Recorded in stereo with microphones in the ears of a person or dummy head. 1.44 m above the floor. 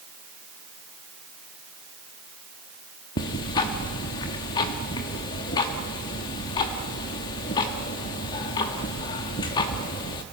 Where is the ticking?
20° left (ahead or behind), 0.9 m.